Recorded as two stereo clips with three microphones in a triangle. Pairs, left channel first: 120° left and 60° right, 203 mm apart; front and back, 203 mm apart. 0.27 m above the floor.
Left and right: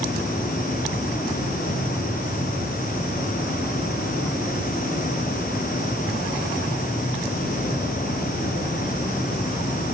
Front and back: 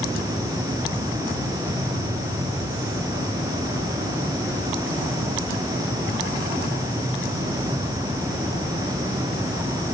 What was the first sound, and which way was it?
Only background noise.